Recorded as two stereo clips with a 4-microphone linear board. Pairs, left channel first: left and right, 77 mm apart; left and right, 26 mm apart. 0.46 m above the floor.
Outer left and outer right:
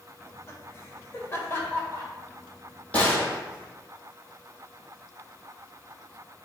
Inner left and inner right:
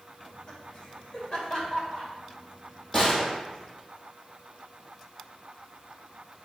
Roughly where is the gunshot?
Centre.